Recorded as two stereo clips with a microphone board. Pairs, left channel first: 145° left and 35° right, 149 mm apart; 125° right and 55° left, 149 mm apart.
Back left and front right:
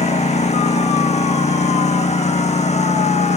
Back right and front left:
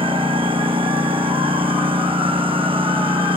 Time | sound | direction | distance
0.0 | a lawn mower | 105° left | ?